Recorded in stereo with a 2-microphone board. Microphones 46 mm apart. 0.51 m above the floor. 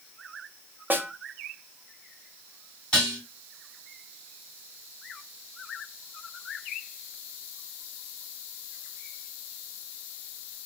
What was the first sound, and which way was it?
A snare drum, 40° right (ahead or behind).